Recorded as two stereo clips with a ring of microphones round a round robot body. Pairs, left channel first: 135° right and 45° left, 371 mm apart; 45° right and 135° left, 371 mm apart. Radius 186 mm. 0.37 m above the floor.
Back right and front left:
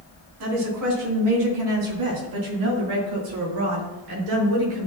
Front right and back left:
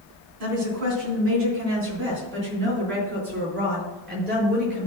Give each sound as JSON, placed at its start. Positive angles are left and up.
{"t": 0.4, "sound": "a woman speaking", "azimuth_deg": 90, "distance_m": 3.5}